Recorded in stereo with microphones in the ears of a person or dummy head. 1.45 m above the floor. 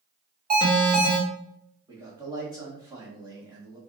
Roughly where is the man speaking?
Centre.